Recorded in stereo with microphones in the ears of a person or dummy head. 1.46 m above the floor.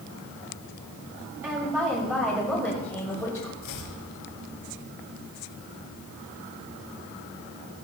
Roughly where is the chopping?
Left.